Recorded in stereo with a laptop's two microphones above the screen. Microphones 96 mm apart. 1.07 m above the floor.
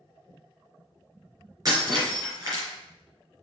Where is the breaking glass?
40° right (ahead or behind), 4 m.